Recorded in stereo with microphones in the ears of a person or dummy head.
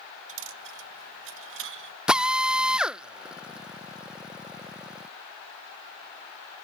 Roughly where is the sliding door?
I don't hear a sliding door.